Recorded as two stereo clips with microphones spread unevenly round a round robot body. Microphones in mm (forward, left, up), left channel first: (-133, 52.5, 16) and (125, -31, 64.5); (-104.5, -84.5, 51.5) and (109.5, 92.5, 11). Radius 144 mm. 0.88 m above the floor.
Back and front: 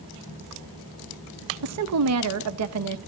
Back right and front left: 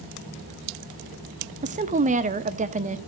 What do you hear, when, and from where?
1.6 s a woman speaking: 5° right, 1.2 m